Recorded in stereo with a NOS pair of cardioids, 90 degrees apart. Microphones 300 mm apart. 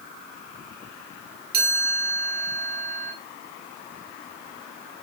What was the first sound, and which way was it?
A chime, 30° right.